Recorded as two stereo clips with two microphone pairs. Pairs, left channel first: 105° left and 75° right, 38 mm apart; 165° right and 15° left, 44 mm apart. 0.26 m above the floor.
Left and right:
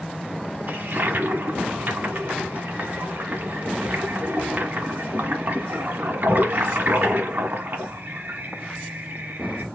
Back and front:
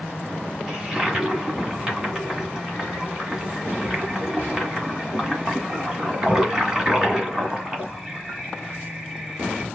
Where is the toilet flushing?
60° right, 1.6 m.